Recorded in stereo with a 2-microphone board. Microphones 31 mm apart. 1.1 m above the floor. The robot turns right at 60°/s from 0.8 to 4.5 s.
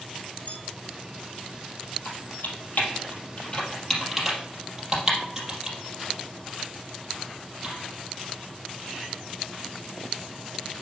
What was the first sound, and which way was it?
A bell, 55° left (ahead or behind).